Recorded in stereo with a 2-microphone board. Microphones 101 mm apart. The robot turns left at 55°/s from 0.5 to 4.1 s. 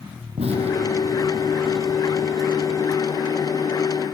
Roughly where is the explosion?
Right.